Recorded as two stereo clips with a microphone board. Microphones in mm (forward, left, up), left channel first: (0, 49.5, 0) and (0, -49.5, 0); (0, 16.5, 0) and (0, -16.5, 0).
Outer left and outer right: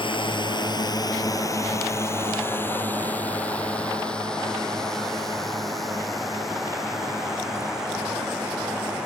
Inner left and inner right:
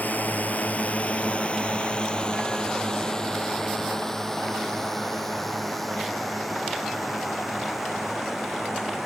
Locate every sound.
0.0 s a drone: 55° left (ahead or behind); by 9.1 s 5° right (ahead or behind)